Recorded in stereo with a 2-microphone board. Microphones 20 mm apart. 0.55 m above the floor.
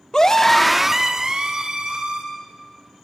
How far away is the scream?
About 1.2 m.